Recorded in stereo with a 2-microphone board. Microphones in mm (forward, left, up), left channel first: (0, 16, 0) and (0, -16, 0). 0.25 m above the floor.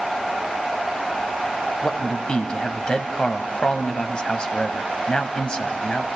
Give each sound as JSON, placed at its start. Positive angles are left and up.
{"t": 1.8, "sound": "a man speaking", "side_deg": 30, "distance_m": 1.7}